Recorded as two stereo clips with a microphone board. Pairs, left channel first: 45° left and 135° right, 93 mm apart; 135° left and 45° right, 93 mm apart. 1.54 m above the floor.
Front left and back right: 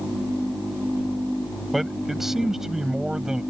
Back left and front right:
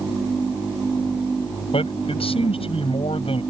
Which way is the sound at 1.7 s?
135° left.